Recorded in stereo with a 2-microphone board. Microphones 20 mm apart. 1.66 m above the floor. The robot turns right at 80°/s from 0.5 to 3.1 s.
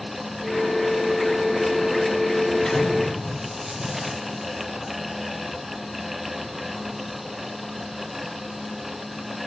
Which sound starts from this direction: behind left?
An explosion, at 2.6 s.